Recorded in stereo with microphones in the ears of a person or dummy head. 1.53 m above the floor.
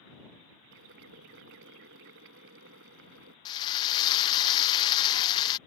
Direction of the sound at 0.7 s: 70° right (ahead or behind).